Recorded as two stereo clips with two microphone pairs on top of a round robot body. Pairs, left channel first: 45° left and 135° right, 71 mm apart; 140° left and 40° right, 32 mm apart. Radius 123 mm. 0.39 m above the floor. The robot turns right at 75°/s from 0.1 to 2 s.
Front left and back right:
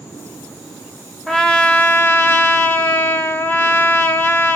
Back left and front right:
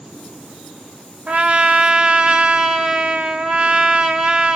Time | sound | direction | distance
1.3 | a trumpet | 45° right | 0.9 m